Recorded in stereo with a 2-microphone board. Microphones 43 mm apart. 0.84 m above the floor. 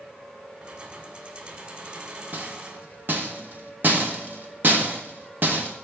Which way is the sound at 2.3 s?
45° right (ahead or behind).